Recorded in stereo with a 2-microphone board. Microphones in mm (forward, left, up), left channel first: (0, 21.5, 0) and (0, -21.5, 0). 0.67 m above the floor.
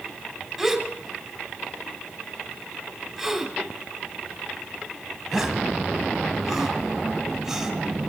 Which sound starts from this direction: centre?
A gasp, at 0.6 s.